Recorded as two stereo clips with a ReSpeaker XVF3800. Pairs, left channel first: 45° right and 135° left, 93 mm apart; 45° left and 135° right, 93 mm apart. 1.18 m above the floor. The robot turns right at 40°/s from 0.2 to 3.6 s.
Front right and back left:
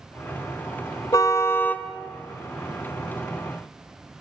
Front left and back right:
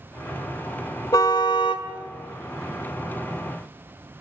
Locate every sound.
1.1 s a car horn: straight ahead, 2 m; by 1.9 s 30° left, 2 m